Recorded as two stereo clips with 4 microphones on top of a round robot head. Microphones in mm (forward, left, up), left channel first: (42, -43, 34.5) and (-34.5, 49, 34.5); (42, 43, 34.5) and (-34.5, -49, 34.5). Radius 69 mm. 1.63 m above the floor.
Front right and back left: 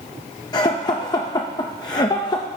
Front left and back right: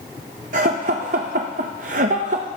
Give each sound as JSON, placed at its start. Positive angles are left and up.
{"t": 0.5, "sound": "laughter", "azimuth_deg": -110, "distance_m": 0.6}